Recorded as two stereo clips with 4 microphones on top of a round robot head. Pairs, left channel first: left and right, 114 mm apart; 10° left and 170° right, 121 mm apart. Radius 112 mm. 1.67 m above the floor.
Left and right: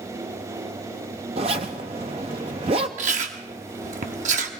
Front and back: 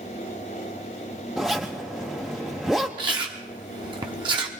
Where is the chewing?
110° right, 0.8 m.